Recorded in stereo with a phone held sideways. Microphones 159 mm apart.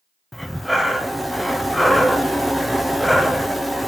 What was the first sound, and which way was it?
Breathing, centre (ahead or behind).